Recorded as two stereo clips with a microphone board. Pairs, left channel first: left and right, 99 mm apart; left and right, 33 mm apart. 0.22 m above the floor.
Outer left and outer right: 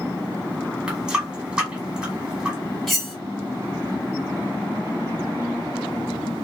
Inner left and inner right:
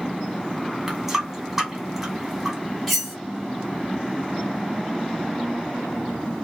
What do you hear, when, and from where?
0.9 s a running tap: 10° right (ahead or behind), 1.1 m
2.9 s cutlery clinking: centre (ahead or behind), 1.1 m